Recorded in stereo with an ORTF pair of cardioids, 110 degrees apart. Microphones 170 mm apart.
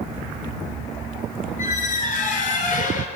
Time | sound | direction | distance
1.6 | a squeak | 50° left | 4 m